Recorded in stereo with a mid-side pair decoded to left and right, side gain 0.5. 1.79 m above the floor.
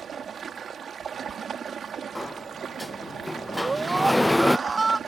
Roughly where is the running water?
Ahead right.